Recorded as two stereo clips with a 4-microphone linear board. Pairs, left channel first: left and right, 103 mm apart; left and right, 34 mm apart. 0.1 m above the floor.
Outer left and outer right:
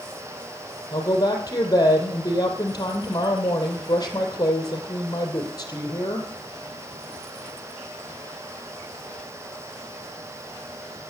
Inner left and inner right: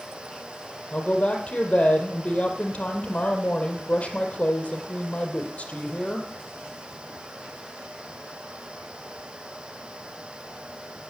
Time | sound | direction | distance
0.9 | a woman speaking | 35° left (ahead or behind) | 3 m